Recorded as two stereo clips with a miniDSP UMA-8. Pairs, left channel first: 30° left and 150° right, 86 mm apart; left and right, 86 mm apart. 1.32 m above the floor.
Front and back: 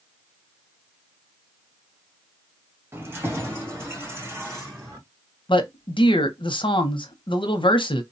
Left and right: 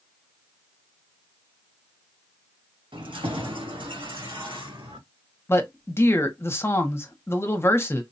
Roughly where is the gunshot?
No gunshot in this recording.